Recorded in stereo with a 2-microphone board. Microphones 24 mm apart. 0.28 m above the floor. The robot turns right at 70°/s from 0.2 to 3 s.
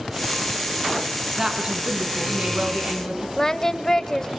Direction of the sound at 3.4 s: 20° left (ahead or behind).